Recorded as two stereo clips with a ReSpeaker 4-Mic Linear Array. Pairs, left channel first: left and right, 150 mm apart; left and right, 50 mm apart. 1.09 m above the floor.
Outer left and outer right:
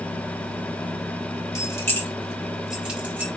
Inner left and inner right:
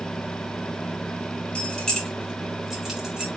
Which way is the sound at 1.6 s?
20° left (ahead or behind).